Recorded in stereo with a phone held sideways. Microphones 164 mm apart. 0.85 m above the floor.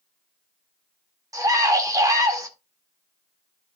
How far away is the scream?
About 2 m.